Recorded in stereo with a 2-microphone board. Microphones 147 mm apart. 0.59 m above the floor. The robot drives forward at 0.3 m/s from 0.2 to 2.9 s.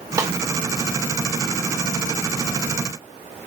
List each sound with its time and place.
0.2 s a snare drum: 20° right (ahead or behind), 0.6 m; by 0.3 s 25° right (ahead or behind), 0.6 m